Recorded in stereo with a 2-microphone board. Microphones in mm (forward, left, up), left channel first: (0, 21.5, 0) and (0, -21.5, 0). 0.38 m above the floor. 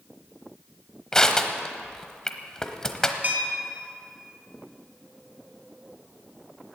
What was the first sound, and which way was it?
Crushing, 15° left (ahead or behind).